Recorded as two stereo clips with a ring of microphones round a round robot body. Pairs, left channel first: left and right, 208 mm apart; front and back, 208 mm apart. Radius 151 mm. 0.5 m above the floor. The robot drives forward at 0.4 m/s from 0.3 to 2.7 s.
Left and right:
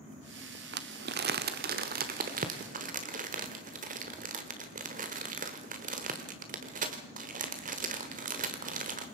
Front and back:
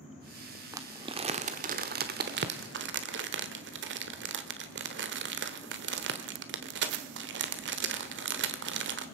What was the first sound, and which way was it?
Crumpling, 105° right.